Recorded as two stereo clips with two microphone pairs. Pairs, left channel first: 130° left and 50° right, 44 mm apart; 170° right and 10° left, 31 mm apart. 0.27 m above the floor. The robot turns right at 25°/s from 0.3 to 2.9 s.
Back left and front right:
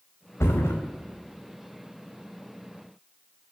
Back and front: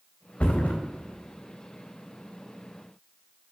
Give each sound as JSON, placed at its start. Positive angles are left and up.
{"t": 0.4, "sound": "a thud", "azimuth_deg": 140, "distance_m": 3.0}